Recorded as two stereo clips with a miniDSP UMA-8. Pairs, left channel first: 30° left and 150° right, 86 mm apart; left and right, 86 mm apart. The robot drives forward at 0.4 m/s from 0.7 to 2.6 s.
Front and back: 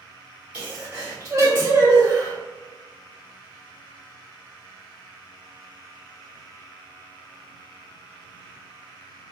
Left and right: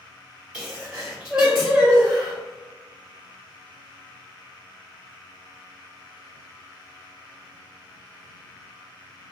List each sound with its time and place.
0.5 s a sneeze: 150° right, 1.2 m; by 2.4 s 170° right, 1.6 m